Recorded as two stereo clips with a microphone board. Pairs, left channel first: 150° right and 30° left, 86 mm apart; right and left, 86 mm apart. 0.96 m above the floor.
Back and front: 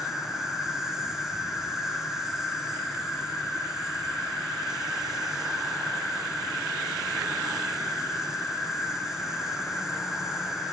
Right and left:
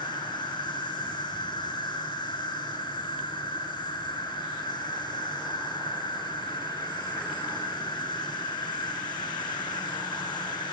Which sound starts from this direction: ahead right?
An insect, at 0.0 s.